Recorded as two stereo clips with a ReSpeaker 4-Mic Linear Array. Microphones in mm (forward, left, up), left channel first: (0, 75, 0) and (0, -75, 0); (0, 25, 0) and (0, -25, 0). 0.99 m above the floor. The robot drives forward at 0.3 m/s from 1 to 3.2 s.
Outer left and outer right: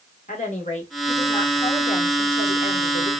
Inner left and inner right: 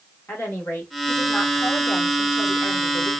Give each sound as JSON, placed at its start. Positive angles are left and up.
{"t": 0.3, "sound": "a woman speaking", "side_deg": 55, "distance_m": 1.7}